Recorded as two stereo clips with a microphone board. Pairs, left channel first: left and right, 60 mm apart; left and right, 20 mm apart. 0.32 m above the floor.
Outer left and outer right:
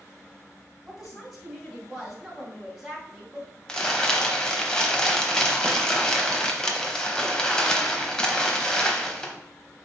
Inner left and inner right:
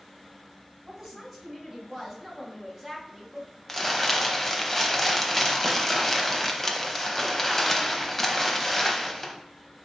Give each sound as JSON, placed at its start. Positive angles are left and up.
{"t": 0.8, "sound": "a woman speaking", "side_deg": -5, "distance_m": 2.0}
{"t": 3.7, "sound": "crumpling", "side_deg": 10, "distance_m": 0.7}